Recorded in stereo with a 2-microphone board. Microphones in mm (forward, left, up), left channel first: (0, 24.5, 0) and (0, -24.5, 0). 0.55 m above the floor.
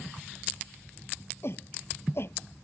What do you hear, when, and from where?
1.4 s a shout: 55° left (ahead or behind)